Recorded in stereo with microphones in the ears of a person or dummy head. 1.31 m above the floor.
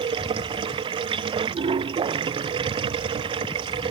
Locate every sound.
0.0 s running water: 25° right (ahead or behind)